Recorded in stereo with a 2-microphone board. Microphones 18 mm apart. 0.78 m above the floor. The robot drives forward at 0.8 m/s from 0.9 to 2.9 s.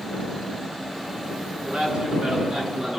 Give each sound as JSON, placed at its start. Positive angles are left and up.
{"t": 1.6, "sound": "a man speaking", "side_deg": -55, "distance_m": 9.5}